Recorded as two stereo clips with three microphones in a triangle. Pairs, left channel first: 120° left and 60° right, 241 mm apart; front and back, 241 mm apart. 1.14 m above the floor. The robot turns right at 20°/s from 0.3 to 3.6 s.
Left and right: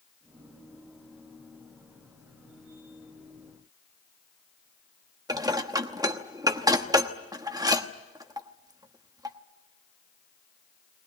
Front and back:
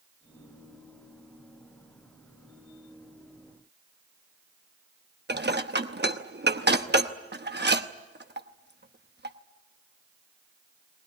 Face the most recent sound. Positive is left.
turn(degrees=-135)